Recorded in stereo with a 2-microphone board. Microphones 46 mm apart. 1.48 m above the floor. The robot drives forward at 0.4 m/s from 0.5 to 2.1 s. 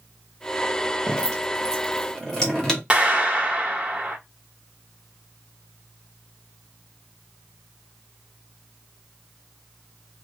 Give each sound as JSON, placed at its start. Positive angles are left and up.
{"t": 1.1, "sound": "dripping", "side_deg": 15, "distance_m": 0.9}
{"t": 2.9, "sound": "a clap", "side_deg": -20, "distance_m": 1.1}